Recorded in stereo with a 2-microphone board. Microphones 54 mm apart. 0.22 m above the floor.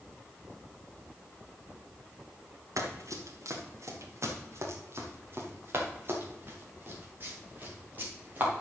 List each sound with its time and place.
2.8 s running footsteps: 80° right, 3 m; by 8.6 s 30° right (ahead or behind), 6.5 m